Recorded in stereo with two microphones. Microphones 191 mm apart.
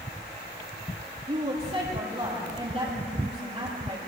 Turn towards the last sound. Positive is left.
turn(degrees=-35)  # may be behind; listen again after turning